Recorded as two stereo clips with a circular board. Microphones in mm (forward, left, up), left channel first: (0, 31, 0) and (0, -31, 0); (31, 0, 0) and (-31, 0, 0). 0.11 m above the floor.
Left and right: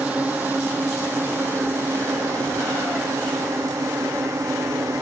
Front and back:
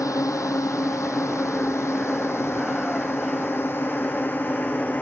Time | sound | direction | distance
0.0 | a drone | 20° right | ?